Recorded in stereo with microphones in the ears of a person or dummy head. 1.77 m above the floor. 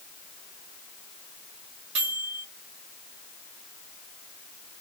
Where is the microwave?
30° right (ahead or behind), 1.4 m.